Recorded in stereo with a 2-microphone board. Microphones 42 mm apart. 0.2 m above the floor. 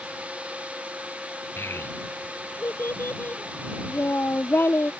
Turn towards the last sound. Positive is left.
turn(degrees=60)  # may be behind; listen again after turning